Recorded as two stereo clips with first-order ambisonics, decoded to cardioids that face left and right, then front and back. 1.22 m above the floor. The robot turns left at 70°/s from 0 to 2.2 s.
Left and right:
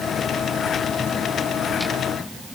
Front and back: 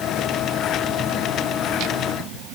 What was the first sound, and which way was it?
Only background noise.